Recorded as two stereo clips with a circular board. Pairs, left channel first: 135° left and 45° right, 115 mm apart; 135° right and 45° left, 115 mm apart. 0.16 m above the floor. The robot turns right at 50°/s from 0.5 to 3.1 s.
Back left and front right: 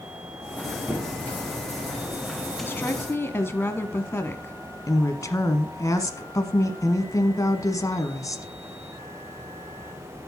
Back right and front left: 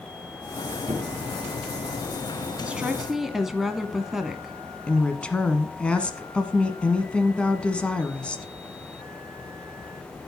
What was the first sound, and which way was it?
A squeak, 25° left.